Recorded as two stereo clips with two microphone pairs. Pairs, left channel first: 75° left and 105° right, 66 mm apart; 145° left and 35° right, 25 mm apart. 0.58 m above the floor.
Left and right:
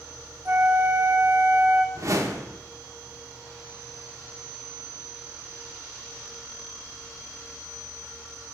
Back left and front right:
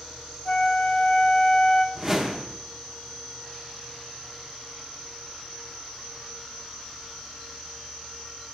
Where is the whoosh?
95° right, 0.7 m.